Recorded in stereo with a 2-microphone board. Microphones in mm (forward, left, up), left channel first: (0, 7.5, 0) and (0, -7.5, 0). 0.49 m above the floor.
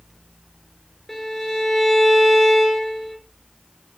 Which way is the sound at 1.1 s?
20° left (ahead or behind).